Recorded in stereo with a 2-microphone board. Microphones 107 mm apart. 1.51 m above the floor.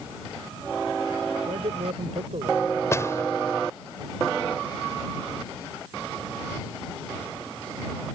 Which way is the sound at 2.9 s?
25° left (ahead or behind).